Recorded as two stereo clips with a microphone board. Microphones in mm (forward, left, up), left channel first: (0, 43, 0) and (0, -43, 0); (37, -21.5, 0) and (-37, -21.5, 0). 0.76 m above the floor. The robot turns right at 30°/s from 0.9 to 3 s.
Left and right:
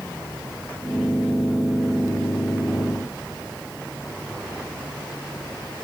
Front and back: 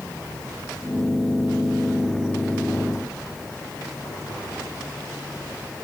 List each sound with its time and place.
Only background noise.